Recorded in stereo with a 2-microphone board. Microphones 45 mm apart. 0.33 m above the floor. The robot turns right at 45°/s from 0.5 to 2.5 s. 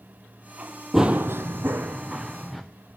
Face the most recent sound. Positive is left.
turn(degrees=-5)  # may be behind; listen again after turning